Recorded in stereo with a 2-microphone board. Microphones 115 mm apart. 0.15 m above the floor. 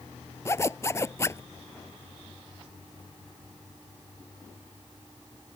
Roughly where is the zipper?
Left.